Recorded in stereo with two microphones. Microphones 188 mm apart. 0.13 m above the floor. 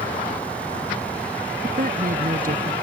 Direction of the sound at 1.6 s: 50° right (ahead or behind).